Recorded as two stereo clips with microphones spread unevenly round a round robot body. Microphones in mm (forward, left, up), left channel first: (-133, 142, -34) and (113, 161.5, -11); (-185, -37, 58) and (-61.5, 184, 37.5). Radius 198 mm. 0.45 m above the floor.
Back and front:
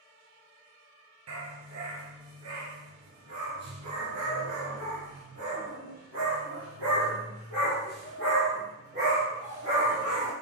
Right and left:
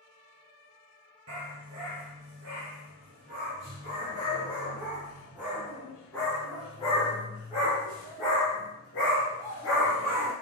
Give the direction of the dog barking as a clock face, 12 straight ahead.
11 o'clock.